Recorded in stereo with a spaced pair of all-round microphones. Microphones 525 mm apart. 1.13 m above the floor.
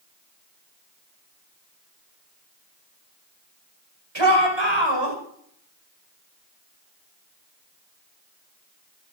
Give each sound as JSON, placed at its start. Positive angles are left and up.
{"t": 4.2, "sound": "a shout", "side_deg": -65, "distance_m": 6.0}